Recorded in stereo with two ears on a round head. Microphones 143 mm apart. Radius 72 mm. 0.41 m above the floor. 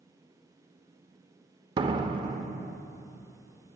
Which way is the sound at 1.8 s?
30° right (ahead or behind).